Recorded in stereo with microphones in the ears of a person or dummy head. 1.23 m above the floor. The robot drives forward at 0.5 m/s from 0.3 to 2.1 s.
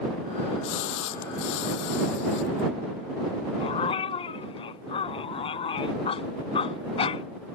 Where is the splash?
65° left (ahead or behind).